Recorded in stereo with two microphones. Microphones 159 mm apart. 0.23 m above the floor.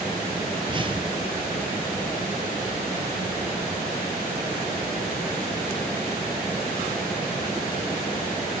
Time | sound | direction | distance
0.6 | a whoosh | 30° right (ahead or behind) | 3 m